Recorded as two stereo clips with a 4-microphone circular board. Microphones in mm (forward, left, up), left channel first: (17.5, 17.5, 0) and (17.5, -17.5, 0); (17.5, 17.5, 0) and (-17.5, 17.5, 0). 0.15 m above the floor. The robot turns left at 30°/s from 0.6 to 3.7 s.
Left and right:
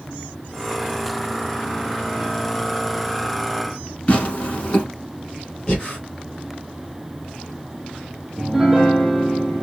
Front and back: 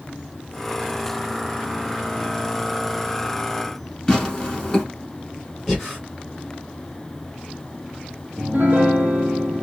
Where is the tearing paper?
65° left, 1.1 m.